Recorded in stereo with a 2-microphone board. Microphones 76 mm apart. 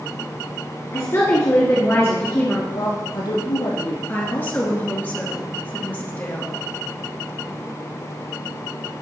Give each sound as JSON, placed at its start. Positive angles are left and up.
{"t": 0.9, "sound": "a woman speaking", "side_deg": 40, "distance_m": 1.8}
{"t": 2.7, "sound": "a woman speaking", "side_deg": 70, "distance_m": 4.0}
{"t": 4.1, "sound": "a woman speaking", "side_deg": 25, "distance_m": 2.0}